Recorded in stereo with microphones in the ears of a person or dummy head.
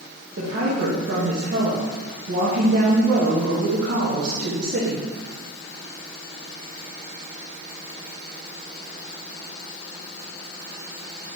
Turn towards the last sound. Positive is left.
turn(degrees=-60)  # may be behind; listen again after turning